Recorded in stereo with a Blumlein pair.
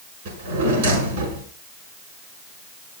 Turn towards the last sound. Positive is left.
turn(degrees=-50)